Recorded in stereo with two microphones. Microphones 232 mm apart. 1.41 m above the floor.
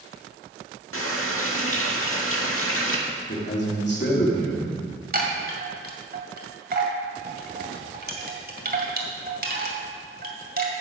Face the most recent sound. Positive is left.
turn(degrees=-40)  # may be behind; listen again after turning